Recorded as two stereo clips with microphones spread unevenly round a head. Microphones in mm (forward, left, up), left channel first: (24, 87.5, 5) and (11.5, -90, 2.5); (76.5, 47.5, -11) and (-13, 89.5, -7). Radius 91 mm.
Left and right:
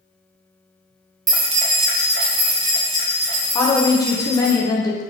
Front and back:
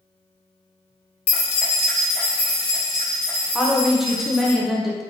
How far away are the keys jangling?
About 0.5 m.